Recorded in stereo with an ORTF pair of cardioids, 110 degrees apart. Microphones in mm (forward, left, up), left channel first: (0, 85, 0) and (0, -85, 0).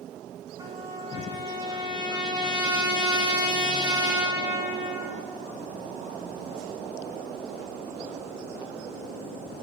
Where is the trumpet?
25° right, 5 m.